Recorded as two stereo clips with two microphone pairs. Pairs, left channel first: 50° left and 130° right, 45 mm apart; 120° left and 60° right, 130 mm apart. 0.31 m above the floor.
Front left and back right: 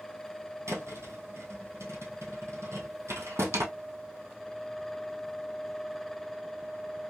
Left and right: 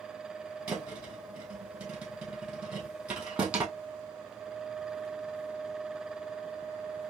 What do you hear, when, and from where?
0.7 s a thud: 140° right, 1.8 m